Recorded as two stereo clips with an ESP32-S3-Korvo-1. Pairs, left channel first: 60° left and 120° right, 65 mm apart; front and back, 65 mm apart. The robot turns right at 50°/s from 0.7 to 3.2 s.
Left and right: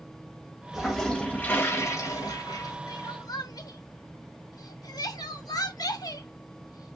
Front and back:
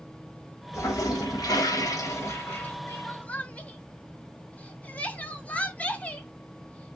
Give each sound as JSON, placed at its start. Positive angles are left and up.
{"t": 0.7, "sound": "a toilet flushing", "azimuth_deg": -35, "distance_m": 1.5}
{"t": 2.9, "sound": "crying", "azimuth_deg": 50, "distance_m": 0.9}